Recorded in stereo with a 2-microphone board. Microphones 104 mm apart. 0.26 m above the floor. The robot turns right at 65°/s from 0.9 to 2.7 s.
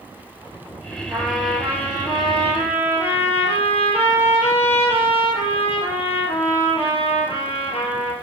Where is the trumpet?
20° right, 2 m; by 8.1 s 85° left, 2 m.